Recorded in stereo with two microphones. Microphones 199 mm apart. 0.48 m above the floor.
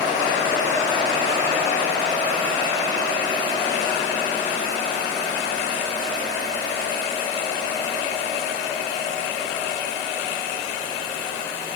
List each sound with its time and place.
Only background noise.